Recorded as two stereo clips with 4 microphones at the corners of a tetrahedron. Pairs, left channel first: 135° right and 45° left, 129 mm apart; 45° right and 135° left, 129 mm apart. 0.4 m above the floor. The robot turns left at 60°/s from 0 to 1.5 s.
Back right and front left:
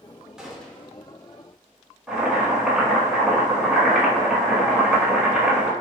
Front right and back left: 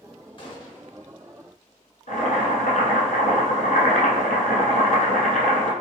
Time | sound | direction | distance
0.4 | a gunshot | 35° right | 0.7 m
2.1 | boiling | 40° right | 0.9 m